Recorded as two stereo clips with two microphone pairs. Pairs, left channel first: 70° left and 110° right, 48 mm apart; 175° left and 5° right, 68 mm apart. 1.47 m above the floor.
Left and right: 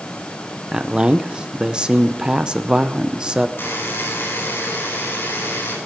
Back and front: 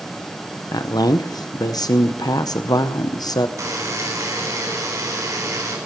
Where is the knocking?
I don't hear knocking.